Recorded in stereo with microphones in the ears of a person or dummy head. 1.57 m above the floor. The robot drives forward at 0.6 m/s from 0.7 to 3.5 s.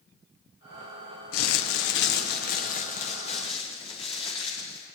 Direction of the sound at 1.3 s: 85° left.